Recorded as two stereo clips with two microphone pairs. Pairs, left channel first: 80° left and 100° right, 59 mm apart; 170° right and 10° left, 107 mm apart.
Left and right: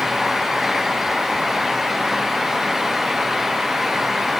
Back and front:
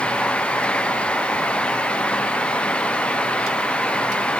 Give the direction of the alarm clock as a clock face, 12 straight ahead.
No alarm clock in this recording.